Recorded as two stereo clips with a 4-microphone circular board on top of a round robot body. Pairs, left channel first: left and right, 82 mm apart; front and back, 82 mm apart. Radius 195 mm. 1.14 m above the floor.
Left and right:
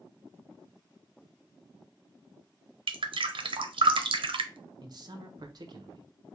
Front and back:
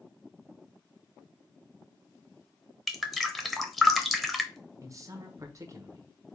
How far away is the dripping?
About 0.7 m.